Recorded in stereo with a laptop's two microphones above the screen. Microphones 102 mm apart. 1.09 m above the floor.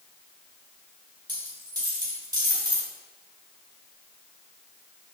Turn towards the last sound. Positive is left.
turn(degrees=-40)  # may be behind; listen again after turning